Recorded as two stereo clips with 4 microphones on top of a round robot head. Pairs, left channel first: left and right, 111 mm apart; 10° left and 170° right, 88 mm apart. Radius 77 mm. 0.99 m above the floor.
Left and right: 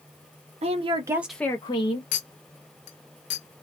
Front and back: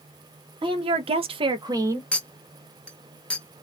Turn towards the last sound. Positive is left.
turn(degrees=90)